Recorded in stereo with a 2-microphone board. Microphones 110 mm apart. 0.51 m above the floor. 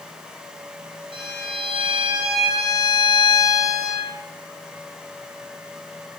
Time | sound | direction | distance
1.1 | a violin | 70° right (ahead or behind) | 2 m